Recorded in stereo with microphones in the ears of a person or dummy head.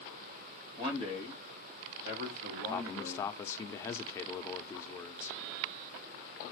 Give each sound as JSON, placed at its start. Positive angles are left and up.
{"t": 0.8, "sound": "a man speaking", "side_deg": -25, "distance_m": 1.5}
{"t": 2.7, "sound": "a man speaking", "side_deg": 20, "distance_m": 0.7}